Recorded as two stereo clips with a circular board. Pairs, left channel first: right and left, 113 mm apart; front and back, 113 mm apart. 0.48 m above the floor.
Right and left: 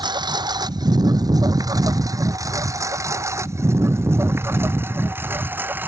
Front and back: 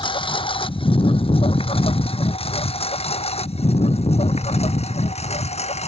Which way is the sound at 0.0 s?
40° left.